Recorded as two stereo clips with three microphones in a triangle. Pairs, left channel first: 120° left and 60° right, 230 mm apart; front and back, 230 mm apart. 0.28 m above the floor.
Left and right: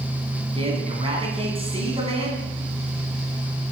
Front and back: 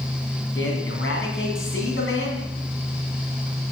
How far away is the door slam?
I don't hear a door slam.